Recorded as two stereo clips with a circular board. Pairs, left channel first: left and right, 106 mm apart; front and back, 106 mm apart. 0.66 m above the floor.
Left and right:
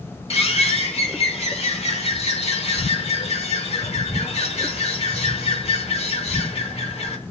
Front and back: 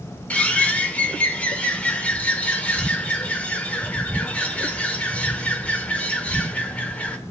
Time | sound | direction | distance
0.3 | a bird | 75° left | 1.2 m